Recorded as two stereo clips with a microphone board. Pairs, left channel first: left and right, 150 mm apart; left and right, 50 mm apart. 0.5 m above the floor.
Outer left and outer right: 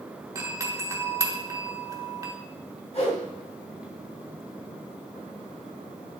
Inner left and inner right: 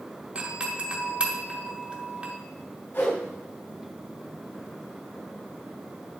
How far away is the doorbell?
About 1.7 m.